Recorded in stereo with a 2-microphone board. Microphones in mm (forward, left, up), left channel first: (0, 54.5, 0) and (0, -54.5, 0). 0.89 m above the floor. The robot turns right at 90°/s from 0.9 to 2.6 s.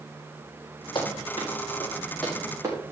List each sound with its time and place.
0.9 s running footsteps: 50° left (ahead or behind), 6 m; by 2.8 s 25° right (ahead or behind), 5 m